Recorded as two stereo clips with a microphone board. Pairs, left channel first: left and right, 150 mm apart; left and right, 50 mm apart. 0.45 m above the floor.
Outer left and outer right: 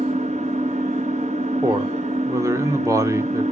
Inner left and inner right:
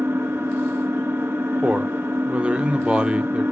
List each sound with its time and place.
0.0 s an engine running: 50° right (ahead or behind), 1.2 m
1.6 s a man speaking: 20° right (ahead or behind), 0.7 m